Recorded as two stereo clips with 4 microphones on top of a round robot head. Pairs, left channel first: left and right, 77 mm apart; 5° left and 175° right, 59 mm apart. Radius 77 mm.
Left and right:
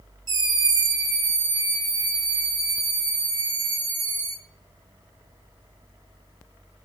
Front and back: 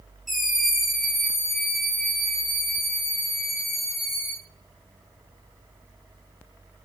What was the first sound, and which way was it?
A scream, 85° right.